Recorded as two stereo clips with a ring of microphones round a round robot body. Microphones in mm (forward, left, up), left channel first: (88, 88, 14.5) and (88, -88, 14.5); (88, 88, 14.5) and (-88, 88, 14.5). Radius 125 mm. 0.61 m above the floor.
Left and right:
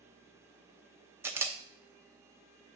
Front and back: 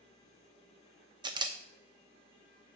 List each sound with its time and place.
1.2 s a camera shutter: 150° right, 0.6 m